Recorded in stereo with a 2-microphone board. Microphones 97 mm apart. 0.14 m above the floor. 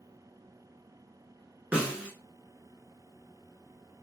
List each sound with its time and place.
1.7 s a snare drum: 15° right (ahead or behind), 1.0 m